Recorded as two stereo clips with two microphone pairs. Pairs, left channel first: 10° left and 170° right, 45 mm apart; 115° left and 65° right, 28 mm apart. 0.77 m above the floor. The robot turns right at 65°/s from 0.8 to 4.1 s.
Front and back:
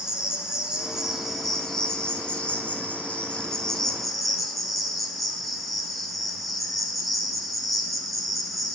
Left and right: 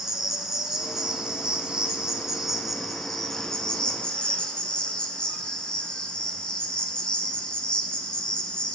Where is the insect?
115° right, 0.7 m; by 8.7 s 95° left, 0.7 m.